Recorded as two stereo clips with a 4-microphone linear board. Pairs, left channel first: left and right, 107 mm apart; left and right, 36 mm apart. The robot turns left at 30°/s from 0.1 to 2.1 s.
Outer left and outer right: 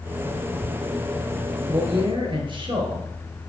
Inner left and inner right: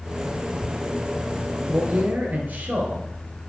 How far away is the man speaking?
About 1.8 m.